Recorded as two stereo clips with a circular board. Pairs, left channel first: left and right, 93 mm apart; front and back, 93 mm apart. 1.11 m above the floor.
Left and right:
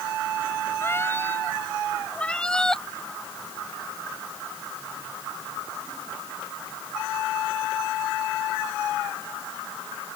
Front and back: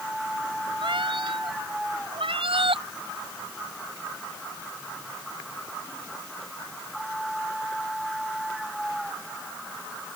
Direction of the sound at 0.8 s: 155° left.